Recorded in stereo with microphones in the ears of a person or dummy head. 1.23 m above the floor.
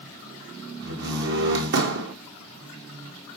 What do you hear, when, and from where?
0.8 s a door slam: 60° right (ahead or behind), 1.4 m